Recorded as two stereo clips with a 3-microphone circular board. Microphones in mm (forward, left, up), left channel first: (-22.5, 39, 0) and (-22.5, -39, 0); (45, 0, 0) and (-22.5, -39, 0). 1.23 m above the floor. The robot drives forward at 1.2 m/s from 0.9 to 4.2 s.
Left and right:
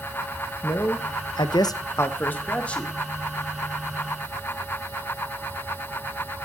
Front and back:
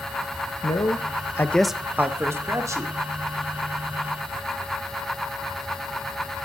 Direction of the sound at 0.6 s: 40° left.